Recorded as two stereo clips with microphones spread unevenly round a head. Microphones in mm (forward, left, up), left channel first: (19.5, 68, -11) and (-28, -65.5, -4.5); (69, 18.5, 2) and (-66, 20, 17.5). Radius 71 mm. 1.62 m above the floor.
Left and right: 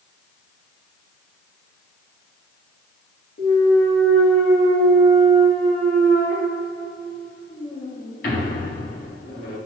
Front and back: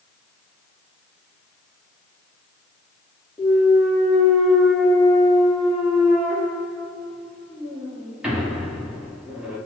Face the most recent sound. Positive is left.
turn(degrees=100)